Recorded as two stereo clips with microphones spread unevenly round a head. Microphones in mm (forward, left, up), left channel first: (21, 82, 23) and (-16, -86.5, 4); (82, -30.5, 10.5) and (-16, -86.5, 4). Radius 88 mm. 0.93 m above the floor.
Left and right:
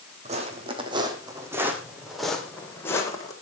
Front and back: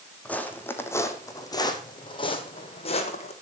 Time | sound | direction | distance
0.2 | footsteps | 50° right | 3 m